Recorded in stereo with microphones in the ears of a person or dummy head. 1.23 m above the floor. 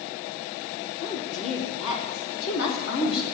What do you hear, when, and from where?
1.0 s a woman speaking: 70° left (ahead or behind), 3.5 m; by 3.2 s 85° left, 5.5 m